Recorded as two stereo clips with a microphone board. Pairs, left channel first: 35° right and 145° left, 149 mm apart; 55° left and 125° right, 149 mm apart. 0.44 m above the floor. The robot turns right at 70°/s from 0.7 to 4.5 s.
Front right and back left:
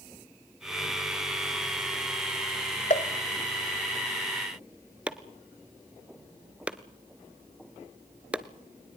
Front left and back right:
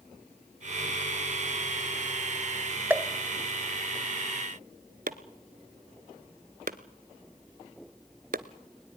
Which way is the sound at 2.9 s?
50° right.